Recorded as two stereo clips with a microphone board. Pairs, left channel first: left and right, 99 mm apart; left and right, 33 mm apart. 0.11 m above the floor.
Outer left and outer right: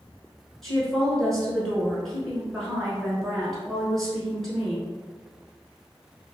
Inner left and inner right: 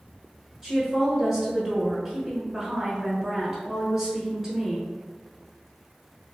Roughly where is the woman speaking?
Centre.